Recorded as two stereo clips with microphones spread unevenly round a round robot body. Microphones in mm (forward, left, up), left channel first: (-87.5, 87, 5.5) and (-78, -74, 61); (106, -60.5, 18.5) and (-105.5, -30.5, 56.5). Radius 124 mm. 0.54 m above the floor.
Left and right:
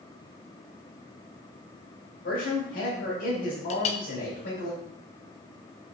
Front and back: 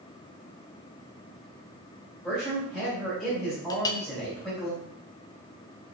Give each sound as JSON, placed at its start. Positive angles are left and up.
{"t": 2.2, "sound": "a man speaking", "azimuth_deg": 80, "distance_m": 3.0}
{"t": 3.7, "sound": "a clink", "azimuth_deg": 60, "distance_m": 0.6}